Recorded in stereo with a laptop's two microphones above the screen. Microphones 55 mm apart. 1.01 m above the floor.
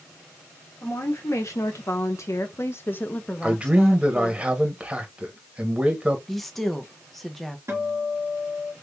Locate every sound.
0.8 s a woman speaking: 60° left (ahead or behind), 1.3 m; by 4.4 s 5° right (ahead or behind), 1.0 m
3.4 s a man speaking: 20° right (ahead or behind), 1.3 m
6.3 s a woman speaking: 5° left (ahead or behind), 0.7 m
7.7 s a guitar: 55° right (ahead or behind), 1.7 m